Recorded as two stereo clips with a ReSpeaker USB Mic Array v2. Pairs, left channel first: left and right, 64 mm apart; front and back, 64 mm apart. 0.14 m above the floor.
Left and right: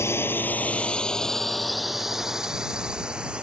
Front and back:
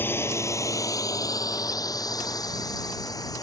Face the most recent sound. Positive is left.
turn(degrees=-15)